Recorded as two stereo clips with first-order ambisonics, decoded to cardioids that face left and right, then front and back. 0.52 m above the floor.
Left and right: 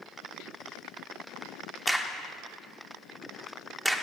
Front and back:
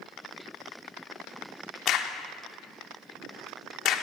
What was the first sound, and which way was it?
A crack, straight ahead.